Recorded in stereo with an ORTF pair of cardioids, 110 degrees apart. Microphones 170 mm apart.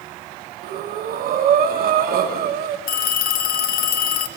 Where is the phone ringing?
65° left, 1.2 m.